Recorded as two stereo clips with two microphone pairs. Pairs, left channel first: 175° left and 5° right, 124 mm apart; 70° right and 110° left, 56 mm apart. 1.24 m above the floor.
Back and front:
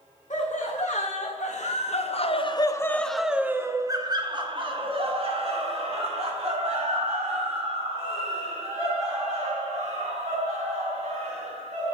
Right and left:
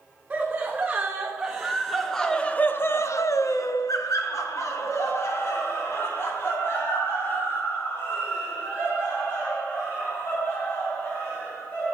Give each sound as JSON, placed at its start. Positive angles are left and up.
{"t": 0.3, "sound": "laughter", "azimuth_deg": 175, "distance_m": 1.6}